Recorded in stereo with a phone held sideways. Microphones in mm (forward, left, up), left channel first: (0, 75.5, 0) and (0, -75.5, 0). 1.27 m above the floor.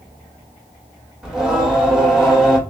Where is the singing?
5° right (ahead or behind), 1.7 m.